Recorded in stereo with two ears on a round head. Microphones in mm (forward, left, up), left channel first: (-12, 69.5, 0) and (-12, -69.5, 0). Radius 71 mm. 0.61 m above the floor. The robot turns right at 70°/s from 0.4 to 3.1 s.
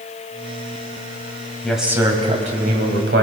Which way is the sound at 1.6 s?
175° left.